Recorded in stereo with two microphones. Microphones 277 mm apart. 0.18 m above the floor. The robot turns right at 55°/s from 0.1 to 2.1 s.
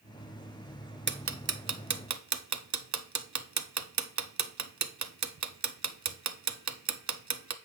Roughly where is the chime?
No chime in this recording.